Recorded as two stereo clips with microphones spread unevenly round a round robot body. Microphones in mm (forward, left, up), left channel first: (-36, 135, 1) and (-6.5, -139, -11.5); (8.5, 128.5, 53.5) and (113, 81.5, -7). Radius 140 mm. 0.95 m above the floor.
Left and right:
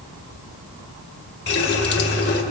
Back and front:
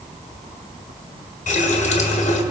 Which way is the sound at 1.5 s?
150° left.